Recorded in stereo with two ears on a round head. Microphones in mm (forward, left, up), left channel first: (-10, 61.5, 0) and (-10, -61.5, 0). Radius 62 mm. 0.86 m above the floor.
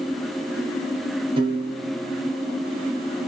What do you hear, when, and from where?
1.4 s a piano: 35° right (ahead or behind), 0.6 m